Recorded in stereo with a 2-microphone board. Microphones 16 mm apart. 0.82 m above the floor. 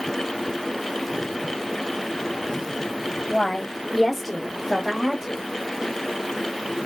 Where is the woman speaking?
35° left (ahead or behind), 0.8 m; by 5.4 s 40° right (ahead or behind), 1.0 m.